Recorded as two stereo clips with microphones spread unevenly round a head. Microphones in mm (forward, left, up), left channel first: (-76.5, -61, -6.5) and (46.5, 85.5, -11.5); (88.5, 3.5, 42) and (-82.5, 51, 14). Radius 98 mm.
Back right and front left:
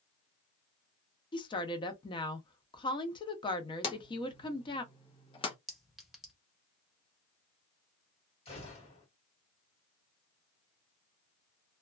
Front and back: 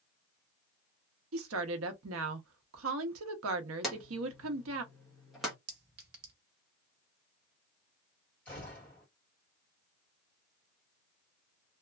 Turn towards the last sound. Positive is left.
turn(degrees=-85)